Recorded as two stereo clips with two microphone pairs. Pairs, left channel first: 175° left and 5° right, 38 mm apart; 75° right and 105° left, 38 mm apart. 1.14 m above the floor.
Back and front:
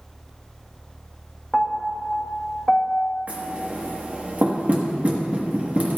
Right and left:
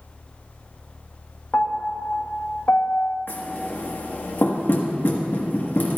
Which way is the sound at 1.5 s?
110° right.